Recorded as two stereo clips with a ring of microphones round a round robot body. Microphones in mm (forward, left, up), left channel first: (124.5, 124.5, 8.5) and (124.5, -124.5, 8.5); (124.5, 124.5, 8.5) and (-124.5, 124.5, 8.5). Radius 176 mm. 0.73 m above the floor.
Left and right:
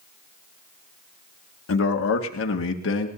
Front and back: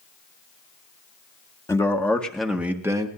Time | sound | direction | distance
1.7 | a man speaking | 75° left | 1.8 m